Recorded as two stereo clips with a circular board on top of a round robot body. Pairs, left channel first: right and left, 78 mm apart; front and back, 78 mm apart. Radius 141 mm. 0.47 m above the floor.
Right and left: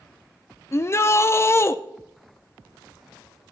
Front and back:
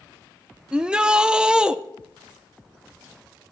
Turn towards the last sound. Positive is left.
turn(degrees=-110)